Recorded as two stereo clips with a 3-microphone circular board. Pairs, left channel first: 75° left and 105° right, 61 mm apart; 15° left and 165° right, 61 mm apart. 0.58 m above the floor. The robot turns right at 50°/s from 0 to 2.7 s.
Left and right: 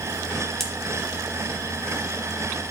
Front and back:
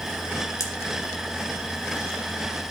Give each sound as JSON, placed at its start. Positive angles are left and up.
{"t": 0.6, "sound": "a pop", "azimuth_deg": -10, "distance_m": 2.5}